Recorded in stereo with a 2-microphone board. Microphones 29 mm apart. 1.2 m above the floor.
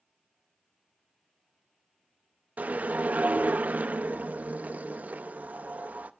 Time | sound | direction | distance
2.6 | a whoosh | 55° right (ahead or behind) | 0.6 m